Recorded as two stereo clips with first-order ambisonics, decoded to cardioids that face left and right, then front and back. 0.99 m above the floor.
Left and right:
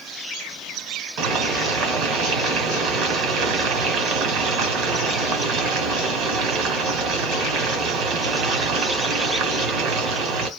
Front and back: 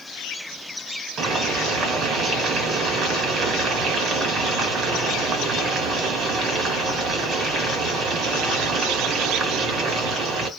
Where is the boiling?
120° right, 1.2 m.